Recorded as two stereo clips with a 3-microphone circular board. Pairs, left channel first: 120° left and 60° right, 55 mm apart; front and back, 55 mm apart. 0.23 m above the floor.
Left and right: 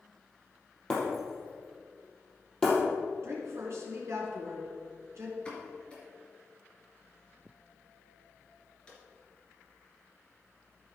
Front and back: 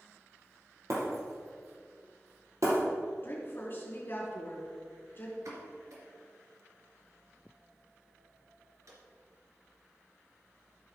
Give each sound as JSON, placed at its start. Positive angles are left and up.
{"t": 0.9, "sound": "breaking glass", "azimuth_deg": -165, "distance_m": 3.5}
{"t": 3.2, "sound": "a woman speaking", "azimuth_deg": -45, "distance_m": 3.0}
{"t": 5.5, "sound": "a pop", "azimuth_deg": -170, "distance_m": 2.5}